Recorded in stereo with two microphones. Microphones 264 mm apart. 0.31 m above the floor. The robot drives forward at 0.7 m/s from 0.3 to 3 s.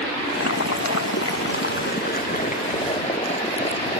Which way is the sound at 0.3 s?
60° left (ahead or behind).